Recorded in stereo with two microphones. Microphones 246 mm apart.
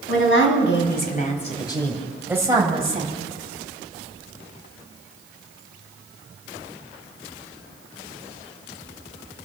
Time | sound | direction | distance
0.1 | a woman speaking | 60° left (ahead or behind) | 3.5 m